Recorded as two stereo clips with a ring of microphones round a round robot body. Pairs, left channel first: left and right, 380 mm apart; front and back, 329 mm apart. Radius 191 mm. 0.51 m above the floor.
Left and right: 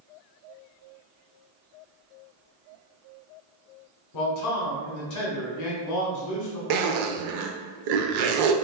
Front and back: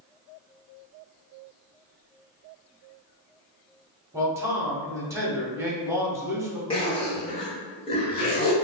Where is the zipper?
80° right, 0.6 m.